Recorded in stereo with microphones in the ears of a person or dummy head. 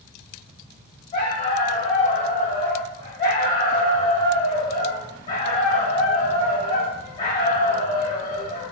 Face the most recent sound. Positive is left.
turn(degrees=25)  # may be behind; listen again after turning